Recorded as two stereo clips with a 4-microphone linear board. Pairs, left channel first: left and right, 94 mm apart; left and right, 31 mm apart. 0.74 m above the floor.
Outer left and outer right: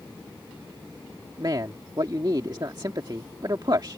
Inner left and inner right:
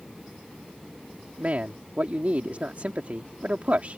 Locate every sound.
1.4 s a man speaking: 50° right (ahead or behind)